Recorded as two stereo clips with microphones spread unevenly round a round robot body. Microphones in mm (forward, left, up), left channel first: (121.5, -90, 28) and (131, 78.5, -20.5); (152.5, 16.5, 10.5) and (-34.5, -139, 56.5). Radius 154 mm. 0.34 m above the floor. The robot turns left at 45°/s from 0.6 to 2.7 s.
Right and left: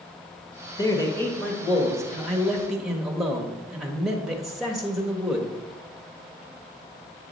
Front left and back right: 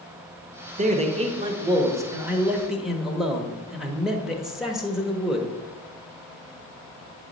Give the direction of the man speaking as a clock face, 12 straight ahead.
6 o'clock.